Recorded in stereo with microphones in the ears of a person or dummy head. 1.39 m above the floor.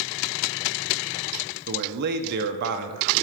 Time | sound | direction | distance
1.7 | a man speaking | 55° right (ahead or behind) | 0.6 m